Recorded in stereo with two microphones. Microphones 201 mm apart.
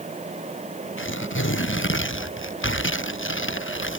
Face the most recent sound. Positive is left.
turn(degrees=80)